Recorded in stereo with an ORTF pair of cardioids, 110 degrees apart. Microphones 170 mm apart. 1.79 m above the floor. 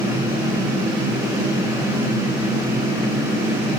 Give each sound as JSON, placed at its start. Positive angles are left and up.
{"t": 0.0, "sound": "a fan", "azimuth_deg": -25, "distance_m": 4.0}